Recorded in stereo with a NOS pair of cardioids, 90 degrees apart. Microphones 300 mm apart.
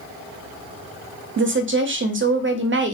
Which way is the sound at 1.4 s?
40° right.